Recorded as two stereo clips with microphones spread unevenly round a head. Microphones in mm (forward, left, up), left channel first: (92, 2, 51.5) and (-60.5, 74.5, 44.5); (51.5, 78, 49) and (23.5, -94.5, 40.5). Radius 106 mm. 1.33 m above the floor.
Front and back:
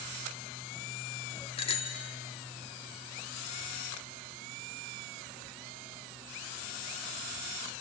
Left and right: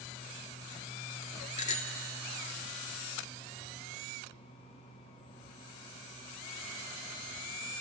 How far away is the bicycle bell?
About 2 m.